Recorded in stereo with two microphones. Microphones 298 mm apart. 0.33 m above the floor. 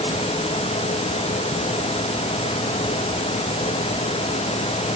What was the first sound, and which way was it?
Only background noise.